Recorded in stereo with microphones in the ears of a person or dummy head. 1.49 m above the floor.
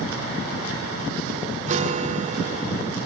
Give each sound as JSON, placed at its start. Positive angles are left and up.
{"t": 1.7, "sound": "a guitar", "side_deg": -40}